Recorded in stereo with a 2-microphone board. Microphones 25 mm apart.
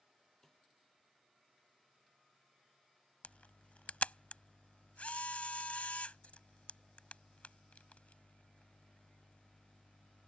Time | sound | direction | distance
0.4 | a snare drum | 15° left (ahead or behind) | ?
3.2 | a camera shutter | 65° left (ahead or behind) | ?